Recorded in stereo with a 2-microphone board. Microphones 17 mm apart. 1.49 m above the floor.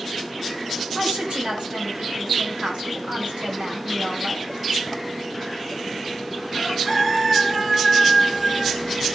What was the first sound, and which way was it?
A woman speaking, 80° right.